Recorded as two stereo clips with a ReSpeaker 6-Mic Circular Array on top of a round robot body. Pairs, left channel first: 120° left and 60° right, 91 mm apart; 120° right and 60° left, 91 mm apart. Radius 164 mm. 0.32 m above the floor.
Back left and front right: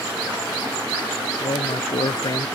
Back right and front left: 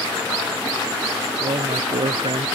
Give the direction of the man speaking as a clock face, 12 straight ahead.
9 o'clock.